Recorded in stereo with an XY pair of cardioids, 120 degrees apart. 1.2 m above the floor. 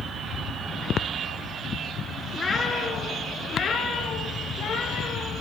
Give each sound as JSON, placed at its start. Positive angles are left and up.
{"t": 2.3, "sound": "a cat meowing", "azimuth_deg": 30, "distance_m": 4.5}